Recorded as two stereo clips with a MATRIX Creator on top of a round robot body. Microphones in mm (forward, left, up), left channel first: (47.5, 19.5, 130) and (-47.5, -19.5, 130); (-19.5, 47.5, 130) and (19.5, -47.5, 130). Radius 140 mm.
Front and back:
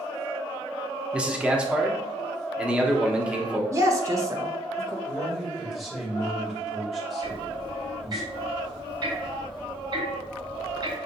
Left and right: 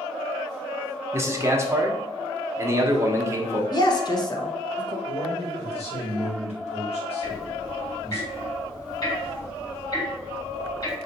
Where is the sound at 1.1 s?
90° right, 1.1 m.